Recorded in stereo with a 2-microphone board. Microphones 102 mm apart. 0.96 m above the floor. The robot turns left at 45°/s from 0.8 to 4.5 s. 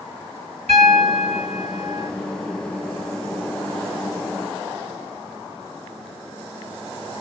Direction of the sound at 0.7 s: 80° right.